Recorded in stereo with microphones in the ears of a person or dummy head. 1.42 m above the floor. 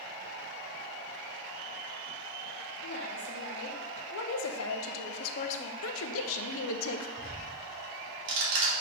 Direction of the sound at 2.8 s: 55° left (ahead or behind).